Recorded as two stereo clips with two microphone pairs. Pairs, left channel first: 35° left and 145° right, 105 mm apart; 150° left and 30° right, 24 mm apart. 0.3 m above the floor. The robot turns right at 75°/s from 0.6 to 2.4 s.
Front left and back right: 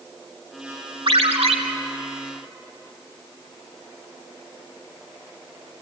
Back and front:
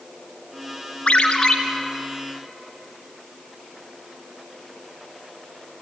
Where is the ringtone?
175° right, 2 m; by 1.6 s 140° right, 2 m.